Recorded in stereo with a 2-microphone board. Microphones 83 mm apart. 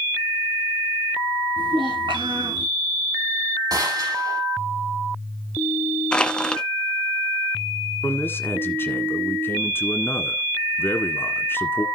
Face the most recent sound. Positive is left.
turn(degrees=25)  # may be behind; listen again after turning